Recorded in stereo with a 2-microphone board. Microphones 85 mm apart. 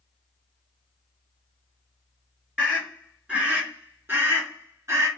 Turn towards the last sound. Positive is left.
turn(degrees=-35)  # may be behind; listen again after turning